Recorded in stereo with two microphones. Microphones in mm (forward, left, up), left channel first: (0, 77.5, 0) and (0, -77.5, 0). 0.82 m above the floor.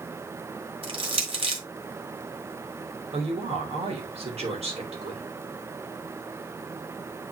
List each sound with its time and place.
0.8 s crushing: 40° right (ahead or behind), 1.7 m
3.1 s a woman speaking: 45° right (ahead or behind), 3 m